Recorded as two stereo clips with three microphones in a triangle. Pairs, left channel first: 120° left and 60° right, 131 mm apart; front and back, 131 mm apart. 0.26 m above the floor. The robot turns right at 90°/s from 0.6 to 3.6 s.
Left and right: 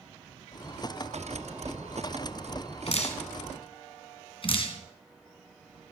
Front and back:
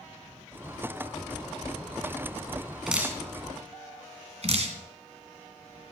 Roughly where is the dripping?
Left.